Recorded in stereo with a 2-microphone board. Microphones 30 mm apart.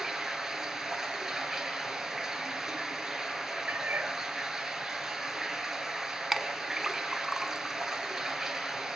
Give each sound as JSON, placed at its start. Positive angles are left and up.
{"t": 0.0, "sound": "running water", "side_deg": -15, "distance_m": 2.5}
{"t": 3.7, "sound": "a cat meowing", "side_deg": -70, "distance_m": 1.3}
{"t": 6.3, "sound": "a clink", "side_deg": -5, "distance_m": 1.0}